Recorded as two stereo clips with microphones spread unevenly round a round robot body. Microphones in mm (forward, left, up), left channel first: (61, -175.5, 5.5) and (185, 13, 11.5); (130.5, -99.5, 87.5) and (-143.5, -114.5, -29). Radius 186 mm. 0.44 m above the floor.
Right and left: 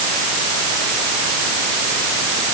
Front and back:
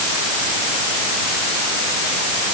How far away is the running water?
I don't hear running water.